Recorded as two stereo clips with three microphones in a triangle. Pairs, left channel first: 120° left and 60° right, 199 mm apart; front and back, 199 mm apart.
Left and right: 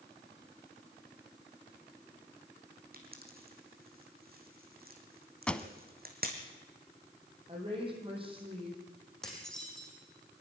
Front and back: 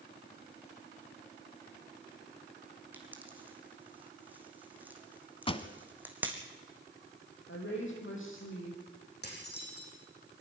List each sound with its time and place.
2.9 s a pop: 100° right, 2.5 m
5.5 s a pop: 40° left, 0.9 m
7.5 s a woman speaking: 5° left, 6 m
9.2 s dishes clattering: 35° left, 5.5 m